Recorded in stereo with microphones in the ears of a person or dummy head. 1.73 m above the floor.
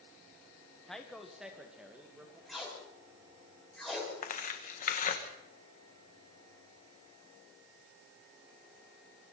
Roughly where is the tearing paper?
Left.